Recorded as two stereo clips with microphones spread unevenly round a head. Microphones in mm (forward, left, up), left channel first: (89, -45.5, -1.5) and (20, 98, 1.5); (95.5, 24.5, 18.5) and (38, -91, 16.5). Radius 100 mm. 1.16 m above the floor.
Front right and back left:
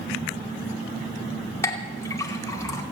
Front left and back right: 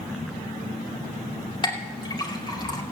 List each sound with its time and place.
1.6 s a clink: 10° left, 2.5 m